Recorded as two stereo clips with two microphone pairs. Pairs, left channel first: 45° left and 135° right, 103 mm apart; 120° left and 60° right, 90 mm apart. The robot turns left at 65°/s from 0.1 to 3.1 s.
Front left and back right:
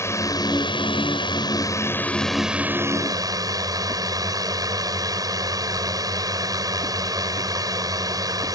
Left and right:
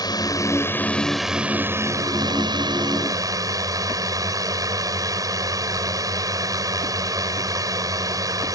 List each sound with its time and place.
0.0 s a drone: 100° left; by 8.6 s 95° right